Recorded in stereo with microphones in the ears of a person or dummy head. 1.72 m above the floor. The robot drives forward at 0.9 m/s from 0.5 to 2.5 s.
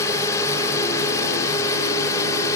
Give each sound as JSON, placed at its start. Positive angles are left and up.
{"t": 0.0, "sound": "a drone", "side_deg": 15}